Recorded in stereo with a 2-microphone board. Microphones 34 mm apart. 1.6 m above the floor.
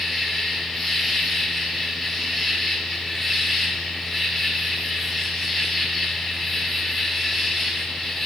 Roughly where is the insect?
Centre.